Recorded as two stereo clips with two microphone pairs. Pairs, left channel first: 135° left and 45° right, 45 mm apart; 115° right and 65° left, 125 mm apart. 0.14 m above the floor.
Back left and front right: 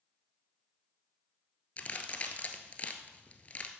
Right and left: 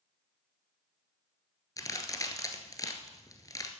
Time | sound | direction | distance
1.8 | a crack | 175° right | 1.3 m